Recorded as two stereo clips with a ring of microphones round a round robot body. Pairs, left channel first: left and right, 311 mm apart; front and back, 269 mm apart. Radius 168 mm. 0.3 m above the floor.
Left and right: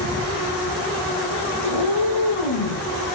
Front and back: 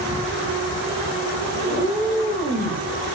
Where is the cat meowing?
70° left, 7 m; by 2.8 s 75° left, 7 m.